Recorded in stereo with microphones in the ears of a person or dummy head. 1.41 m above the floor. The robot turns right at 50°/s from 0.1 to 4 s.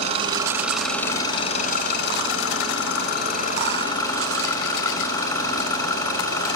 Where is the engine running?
35° right, 6 m; by 6.6 s 160° left, 6 m.